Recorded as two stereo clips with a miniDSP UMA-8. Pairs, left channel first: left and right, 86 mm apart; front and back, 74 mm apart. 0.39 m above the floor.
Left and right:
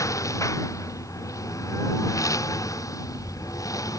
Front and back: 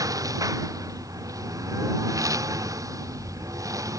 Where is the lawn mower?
140° left.